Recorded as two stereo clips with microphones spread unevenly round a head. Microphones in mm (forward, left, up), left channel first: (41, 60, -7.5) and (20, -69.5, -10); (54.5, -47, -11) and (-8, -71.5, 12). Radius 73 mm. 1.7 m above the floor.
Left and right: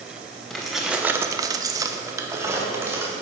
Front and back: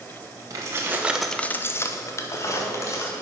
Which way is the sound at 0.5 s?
170° left.